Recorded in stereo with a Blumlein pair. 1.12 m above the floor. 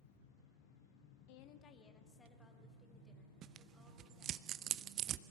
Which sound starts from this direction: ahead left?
A woman speaking, at 1.3 s.